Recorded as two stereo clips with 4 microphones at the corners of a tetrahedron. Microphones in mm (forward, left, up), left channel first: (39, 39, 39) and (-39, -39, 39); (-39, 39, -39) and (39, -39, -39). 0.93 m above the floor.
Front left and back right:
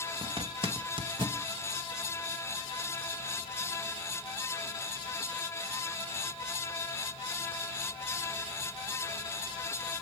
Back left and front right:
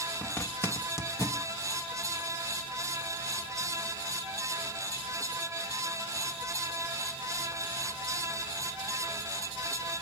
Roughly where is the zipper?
Behind.